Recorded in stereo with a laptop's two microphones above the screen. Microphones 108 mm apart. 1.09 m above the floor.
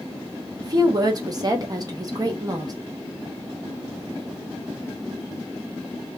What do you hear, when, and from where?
0.6 s a woman speaking: 35° right (ahead or behind), 0.8 m